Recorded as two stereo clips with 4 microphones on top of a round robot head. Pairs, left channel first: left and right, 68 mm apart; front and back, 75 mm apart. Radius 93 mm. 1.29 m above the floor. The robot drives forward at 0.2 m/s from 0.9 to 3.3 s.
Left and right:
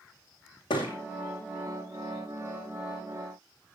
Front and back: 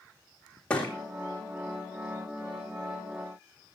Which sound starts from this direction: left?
A thud, at 0.7 s.